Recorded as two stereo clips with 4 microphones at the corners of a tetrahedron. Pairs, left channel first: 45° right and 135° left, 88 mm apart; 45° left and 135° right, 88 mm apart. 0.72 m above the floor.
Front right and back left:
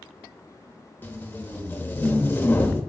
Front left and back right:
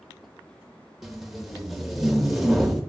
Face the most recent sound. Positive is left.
turn(degrees=-50)